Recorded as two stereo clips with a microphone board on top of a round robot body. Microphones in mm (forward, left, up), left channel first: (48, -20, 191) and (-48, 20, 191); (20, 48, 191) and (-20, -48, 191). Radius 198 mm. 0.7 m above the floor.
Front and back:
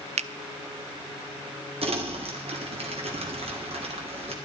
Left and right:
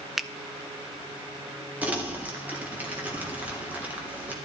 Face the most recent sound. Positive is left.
turn(degrees=170)